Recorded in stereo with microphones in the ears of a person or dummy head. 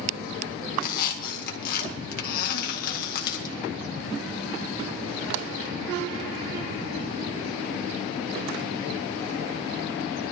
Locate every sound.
0.8 s a squeak: 55° left (ahead or behind), 2.0 m